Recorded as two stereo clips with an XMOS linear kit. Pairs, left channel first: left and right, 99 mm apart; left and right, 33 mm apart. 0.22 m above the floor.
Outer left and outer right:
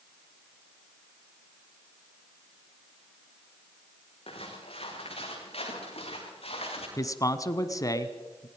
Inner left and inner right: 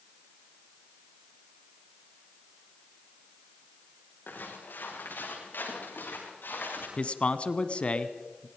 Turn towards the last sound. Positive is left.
turn(degrees=35)  # may be behind; listen again after turning